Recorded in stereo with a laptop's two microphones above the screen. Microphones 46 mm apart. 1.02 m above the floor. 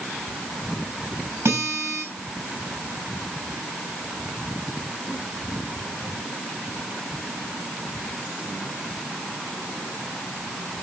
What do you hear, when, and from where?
1.4 s a guitar: 75° right (ahead or behind), 4.5 m